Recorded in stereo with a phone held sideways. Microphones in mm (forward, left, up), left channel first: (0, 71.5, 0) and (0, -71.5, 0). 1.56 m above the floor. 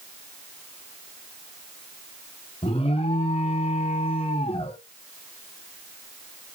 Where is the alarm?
45° left (ahead or behind), 1.0 m.